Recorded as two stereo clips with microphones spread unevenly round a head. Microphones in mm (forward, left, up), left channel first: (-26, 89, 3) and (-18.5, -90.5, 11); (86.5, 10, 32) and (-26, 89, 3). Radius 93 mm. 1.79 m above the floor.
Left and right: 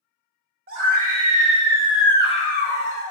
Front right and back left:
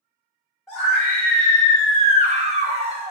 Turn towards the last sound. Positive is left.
turn(degrees=90)